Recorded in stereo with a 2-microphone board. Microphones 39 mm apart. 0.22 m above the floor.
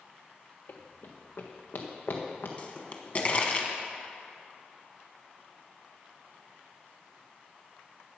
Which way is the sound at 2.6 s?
40° left (ahead or behind).